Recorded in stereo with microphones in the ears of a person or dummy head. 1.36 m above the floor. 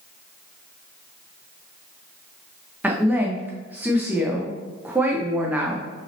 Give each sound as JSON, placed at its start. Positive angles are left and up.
{"t": 2.8, "sound": "a woman speaking", "side_deg": -15, "distance_m": 0.8}